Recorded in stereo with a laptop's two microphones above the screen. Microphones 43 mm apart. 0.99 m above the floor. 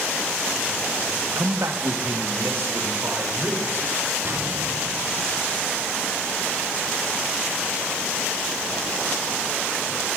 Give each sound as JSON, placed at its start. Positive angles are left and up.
{"t": 1.4, "sound": "a man speaking", "side_deg": -60, "distance_m": 0.8}
{"t": 4.2, "sound": "an explosion", "side_deg": -60, "distance_m": 1.5}